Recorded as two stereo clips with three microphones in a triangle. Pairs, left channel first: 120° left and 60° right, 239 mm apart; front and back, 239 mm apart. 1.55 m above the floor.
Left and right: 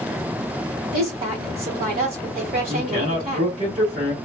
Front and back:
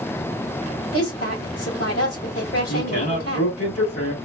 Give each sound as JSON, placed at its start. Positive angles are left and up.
{"t": 0.9, "sound": "a woman speaking", "azimuth_deg": -10, "distance_m": 1.5}
{"t": 2.7, "sound": "a man speaking", "azimuth_deg": 0, "distance_m": 1.6}